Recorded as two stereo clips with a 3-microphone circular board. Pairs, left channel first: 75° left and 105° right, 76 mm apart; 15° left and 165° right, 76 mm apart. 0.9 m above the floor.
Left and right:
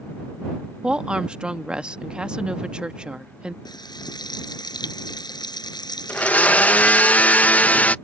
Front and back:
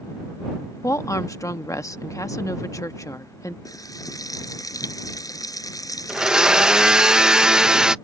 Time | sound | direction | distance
0.8 | a woman speaking | 25° right | ?
3.6 | frying | 55° left | ?
6.1 | a blender | 125° left | ?